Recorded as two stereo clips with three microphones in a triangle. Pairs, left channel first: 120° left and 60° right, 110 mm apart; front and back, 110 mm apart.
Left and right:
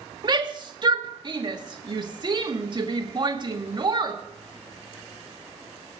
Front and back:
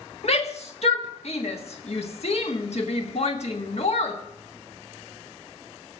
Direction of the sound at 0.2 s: 15° right.